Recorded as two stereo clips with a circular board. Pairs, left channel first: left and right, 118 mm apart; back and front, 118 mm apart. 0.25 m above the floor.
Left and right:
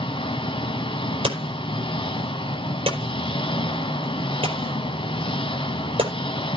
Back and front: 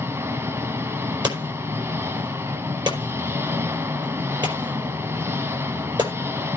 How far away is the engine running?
About 1.1 m.